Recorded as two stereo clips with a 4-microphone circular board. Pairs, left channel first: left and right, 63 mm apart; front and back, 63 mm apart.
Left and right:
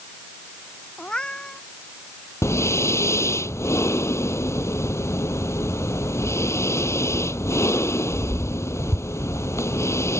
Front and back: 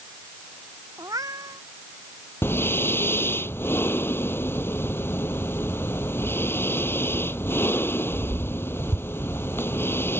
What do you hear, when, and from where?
1.0 s a cat meowing: 165° left
2.4 s breathing: 50° left